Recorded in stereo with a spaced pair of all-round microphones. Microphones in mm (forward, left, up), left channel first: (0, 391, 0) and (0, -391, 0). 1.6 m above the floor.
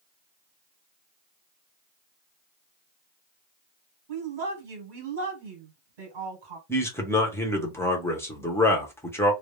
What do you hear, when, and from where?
4.1 s a woman speaking: 80° right, 1.3 m
6.7 s a man speaking: 5° left (ahead or behind), 0.7 m